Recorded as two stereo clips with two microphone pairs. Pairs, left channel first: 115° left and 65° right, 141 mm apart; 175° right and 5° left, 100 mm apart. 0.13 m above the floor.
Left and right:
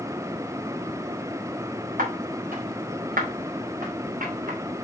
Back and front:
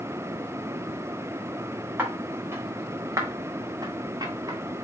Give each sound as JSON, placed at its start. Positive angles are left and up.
{"t": 2.0, "sound": "footsteps", "azimuth_deg": -65, "distance_m": 4.5}